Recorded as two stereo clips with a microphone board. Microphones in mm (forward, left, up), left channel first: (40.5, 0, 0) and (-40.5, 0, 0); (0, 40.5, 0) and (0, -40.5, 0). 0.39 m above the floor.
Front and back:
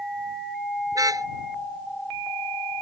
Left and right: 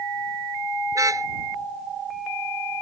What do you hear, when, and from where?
0.9 s a car horn: 140° right